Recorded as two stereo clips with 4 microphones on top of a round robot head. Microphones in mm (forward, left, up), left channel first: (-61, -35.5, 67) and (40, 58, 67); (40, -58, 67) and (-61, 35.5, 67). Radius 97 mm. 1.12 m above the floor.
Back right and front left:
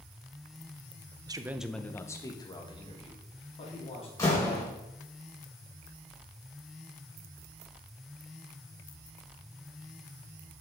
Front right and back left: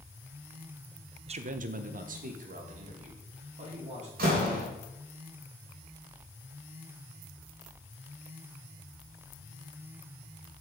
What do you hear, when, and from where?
1.3 s a man speaking: 95° left, 0.7 m; by 4.1 s 175° left, 3 m
4.2 s a door slam: 150° left, 4 m